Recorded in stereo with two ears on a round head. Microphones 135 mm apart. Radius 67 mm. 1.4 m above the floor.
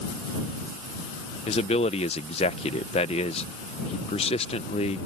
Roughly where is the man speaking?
Left.